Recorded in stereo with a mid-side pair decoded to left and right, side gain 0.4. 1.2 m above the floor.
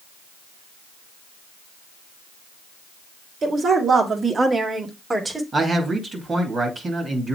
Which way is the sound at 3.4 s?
50° right.